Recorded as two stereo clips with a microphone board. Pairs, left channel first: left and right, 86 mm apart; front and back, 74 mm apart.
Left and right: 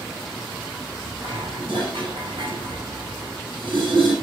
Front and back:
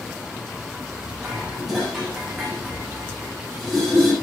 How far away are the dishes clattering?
About 6.5 m.